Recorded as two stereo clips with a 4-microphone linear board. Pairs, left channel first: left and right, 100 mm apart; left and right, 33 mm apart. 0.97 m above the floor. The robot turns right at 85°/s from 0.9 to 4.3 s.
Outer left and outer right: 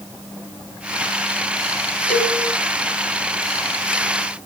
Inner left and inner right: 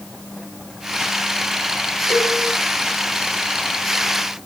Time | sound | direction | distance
2.1 | a cowbell | 10° left (ahead or behind) | 3.5 m